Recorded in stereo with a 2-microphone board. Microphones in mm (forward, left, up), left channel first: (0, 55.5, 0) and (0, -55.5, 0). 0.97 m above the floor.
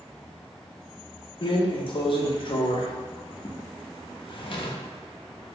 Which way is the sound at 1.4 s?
50° left (ahead or behind).